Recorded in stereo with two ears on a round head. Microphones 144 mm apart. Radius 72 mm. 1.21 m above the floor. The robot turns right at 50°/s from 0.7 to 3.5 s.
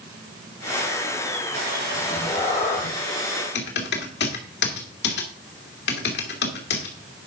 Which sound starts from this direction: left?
Typing on a keyboard, at 3.5 s.